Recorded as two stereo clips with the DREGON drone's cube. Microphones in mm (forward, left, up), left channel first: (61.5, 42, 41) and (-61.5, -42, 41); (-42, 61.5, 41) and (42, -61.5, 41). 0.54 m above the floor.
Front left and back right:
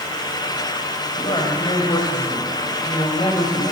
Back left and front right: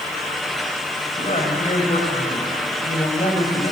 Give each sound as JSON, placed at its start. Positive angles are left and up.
{"t": 1.2, "sound": "a woman speaking", "azimuth_deg": 85, "distance_m": 3.0}